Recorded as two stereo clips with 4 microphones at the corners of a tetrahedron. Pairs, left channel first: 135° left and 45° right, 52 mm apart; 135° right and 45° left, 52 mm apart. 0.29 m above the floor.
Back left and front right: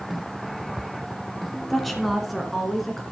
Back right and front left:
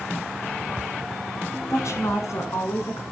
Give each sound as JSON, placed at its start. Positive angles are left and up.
{"t": 1.7, "sound": "a woman speaking", "azimuth_deg": -140, "distance_m": 2.5}